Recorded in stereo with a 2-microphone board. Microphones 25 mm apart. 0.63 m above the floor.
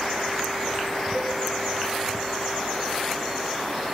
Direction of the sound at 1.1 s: 5° right (ahead or behind).